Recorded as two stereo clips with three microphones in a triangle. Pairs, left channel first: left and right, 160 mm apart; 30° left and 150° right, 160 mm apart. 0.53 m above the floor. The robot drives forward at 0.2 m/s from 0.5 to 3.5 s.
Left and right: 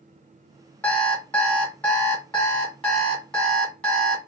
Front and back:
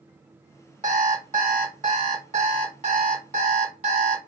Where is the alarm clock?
170° left, 1.7 m.